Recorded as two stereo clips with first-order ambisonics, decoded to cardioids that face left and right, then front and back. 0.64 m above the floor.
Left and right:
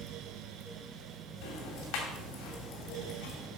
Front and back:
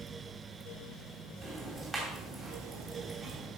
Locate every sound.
1.4 s ticking: 100° left, 2.5 m